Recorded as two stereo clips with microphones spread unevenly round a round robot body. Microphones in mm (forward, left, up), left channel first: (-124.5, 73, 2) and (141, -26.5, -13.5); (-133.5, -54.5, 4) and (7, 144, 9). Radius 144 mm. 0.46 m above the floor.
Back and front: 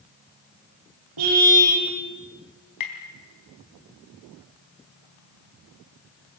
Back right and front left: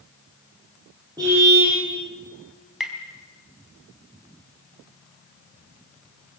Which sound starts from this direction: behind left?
Tapping, at 2.8 s.